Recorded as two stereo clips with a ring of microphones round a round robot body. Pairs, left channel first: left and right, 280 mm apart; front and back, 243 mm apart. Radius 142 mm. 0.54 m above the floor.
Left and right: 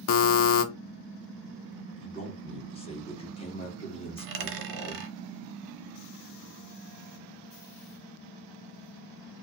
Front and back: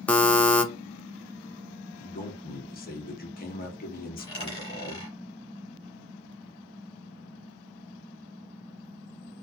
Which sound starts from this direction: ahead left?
A man speaking, at 2.0 s.